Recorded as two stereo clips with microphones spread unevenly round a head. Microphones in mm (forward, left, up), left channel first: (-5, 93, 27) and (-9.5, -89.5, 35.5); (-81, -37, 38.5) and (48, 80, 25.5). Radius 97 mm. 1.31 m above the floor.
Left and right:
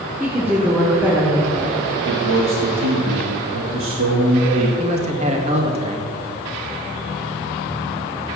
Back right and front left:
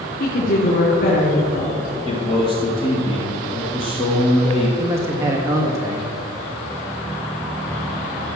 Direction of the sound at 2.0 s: 75° right.